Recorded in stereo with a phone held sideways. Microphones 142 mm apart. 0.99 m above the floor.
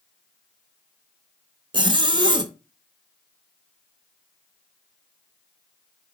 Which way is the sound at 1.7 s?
30° right (ahead or behind).